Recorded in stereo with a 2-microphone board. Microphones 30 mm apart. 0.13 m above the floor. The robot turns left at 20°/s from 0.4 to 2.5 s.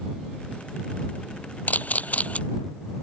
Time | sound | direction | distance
1.7 | a camera shutter | 65° left (ahead or behind) | ?